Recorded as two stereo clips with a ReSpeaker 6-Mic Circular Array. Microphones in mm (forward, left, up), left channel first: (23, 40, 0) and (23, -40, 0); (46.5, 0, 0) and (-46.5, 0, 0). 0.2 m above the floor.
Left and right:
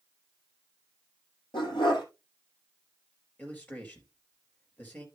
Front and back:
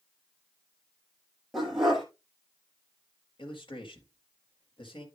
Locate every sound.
1.5 s a dog barking: 90° left, 2.5 m
3.4 s a man speaking: 20° left, 4 m